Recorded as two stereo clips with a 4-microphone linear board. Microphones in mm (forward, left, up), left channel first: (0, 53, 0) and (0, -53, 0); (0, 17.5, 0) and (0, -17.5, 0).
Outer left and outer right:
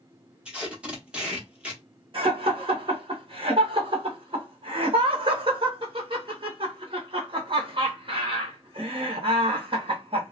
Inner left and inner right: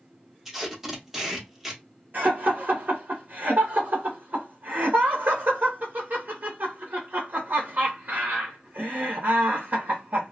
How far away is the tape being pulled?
About 0.8 m.